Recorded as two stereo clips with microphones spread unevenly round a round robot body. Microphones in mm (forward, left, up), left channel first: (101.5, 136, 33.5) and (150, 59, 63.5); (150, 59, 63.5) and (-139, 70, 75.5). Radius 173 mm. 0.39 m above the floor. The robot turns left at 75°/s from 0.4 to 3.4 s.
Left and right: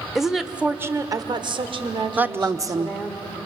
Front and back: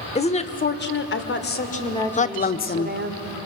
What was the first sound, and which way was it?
A woman speaking, 50° left.